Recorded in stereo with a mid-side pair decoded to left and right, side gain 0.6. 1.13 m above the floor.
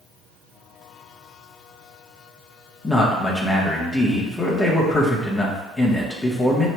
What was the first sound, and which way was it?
A man speaking, 15° left.